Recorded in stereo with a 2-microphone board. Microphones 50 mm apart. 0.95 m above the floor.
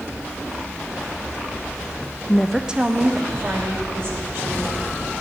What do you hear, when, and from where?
2.3 s a woman speaking: 25° left (ahead or behind), 0.5 m; by 5.0 s 55° right (ahead or behind), 3.5 m